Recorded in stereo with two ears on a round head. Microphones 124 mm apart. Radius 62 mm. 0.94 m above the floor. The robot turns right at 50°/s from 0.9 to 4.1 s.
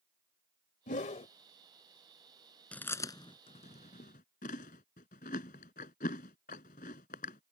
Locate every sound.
0.9 s a whoosh: 65° left (ahead or behind); by 1.3 s 50° left (ahead or behind)
2.7 s chewing: 10° left (ahead or behind); by 7.5 s 65° left (ahead or behind)